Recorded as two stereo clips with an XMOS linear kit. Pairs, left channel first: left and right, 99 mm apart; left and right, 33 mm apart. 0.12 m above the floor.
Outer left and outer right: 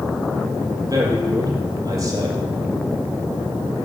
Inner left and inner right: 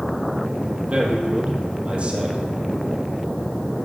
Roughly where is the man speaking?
Right.